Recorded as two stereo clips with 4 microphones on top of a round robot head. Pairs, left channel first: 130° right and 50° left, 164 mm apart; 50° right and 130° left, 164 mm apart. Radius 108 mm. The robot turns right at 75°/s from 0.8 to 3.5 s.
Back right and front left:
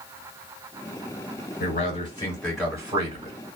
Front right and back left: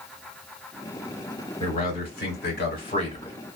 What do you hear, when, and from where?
1.6 s a man speaking: 110° right, 2.5 m; by 3.4 s 25° left, 2.5 m